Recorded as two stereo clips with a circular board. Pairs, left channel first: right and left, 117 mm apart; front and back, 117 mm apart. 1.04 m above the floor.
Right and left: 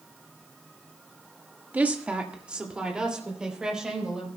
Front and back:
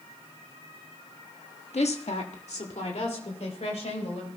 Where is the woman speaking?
15° left, 1.2 m; by 4.3 s 5° left, 4.5 m.